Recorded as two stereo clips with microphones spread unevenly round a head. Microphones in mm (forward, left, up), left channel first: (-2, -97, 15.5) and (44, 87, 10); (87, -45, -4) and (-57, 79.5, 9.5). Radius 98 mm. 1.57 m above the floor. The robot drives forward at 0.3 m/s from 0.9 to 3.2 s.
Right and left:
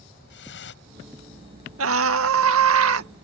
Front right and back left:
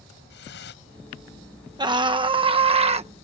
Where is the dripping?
80° right.